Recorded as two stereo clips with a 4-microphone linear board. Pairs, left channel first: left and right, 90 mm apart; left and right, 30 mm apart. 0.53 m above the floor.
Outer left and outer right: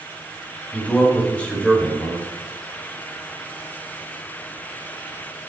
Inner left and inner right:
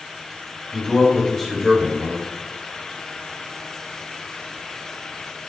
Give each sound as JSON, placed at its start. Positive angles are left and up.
{"t": 0.7, "sound": "a man speaking", "side_deg": 10, "distance_m": 3.5}